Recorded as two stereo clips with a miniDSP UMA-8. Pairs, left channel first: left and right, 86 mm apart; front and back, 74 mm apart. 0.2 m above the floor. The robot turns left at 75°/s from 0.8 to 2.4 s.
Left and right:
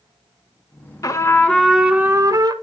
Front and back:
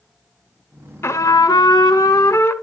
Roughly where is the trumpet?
Ahead left.